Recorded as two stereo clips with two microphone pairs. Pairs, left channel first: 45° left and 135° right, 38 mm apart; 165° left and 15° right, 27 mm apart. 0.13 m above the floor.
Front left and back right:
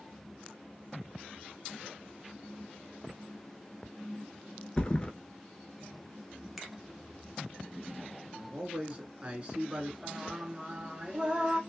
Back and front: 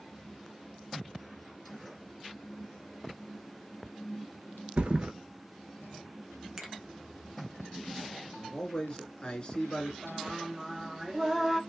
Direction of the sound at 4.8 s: 10° right.